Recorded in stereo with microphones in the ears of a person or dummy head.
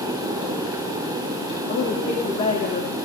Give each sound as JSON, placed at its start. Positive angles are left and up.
{"t": 1.7, "sound": "a woman speaking", "side_deg": 45, "distance_m": 2.5}